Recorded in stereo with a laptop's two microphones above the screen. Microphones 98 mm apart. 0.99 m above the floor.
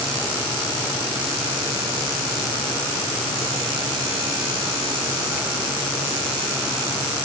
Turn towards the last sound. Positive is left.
No sound to turn to.